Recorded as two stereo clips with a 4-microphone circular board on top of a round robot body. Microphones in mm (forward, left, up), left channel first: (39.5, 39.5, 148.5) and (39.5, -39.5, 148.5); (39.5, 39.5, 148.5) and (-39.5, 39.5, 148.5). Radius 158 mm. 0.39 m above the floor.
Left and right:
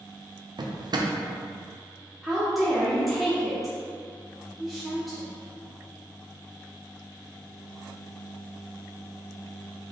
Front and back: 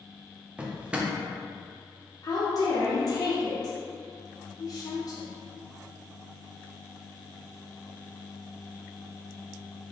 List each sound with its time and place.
0.6 s a drawer: 105° right, 0.5 m
2.2 s a woman speaking: straight ahead, 1.1 m